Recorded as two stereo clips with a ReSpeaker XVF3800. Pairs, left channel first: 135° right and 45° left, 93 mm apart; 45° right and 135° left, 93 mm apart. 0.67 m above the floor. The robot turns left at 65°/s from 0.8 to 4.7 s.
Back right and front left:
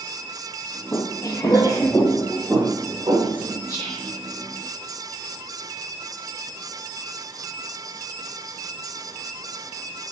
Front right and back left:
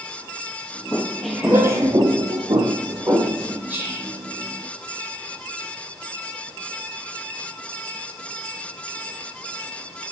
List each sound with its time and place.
0.9 s footsteps: 100° right, 0.7 m; by 3.6 s 55° left, 1.9 m
3.7 s whispering: 165° right, 0.7 m; by 4.1 s 165° left, 0.7 m